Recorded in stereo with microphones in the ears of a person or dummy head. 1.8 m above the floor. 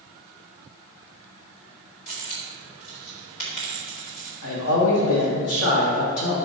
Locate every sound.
2.1 s a dropped coin: 50° left (ahead or behind), 1.7 m
4.4 s a man speaking: 70° left (ahead or behind), 1.7 m